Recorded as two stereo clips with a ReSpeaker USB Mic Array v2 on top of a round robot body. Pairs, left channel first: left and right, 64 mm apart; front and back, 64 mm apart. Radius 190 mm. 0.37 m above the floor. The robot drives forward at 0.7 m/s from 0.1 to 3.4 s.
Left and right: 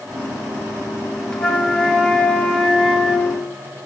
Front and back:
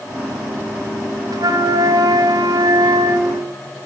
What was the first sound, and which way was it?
A flute, 170° left.